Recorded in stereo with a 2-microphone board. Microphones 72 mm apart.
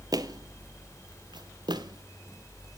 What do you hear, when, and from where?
0.1 s footsteps: 60° right (ahead or behind), 1.1 m; by 2.8 s 55° right (ahead or behind), 1.4 m